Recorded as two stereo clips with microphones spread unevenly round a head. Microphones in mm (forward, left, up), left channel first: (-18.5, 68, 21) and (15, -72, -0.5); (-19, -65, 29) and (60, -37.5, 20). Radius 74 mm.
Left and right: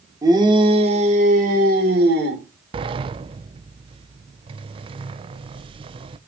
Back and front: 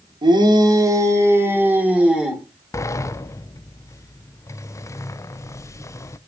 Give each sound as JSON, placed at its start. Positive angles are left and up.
{"t": 0.2, "sound": "a shout", "azimuth_deg": -10, "distance_m": 2.5}
{"t": 2.7, "sound": "a sliding door", "azimuth_deg": -110, "distance_m": 0.6}